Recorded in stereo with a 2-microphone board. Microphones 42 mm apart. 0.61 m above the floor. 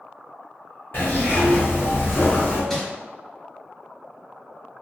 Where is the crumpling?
10° left (ahead or behind), 1.1 m.